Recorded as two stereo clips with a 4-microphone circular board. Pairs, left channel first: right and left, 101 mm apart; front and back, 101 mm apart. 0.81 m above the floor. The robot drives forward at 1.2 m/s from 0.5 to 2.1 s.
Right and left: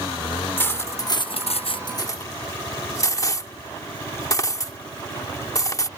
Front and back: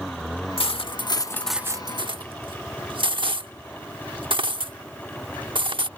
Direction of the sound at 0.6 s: 20° right.